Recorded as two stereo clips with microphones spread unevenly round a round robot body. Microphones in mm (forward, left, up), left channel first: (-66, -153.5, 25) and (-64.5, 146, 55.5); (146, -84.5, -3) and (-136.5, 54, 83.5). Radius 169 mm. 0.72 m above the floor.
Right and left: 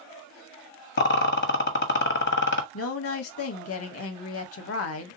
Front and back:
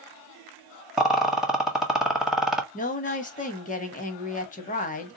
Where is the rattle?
100° right, 1.1 m.